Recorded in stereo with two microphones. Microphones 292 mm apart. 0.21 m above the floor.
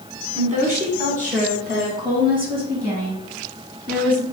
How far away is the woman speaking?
About 1.4 m.